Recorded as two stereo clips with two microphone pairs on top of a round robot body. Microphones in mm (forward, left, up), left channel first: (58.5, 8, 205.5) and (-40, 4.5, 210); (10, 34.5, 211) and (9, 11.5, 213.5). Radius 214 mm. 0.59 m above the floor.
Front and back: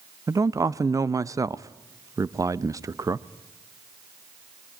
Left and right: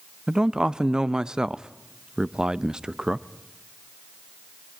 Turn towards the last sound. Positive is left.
turn(degrees=-140)